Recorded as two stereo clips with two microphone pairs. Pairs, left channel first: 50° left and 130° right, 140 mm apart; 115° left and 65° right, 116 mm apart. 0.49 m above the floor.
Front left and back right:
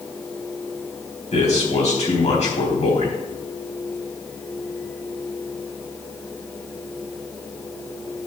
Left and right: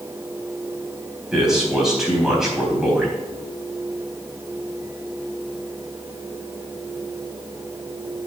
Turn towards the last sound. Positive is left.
turn(degrees=20)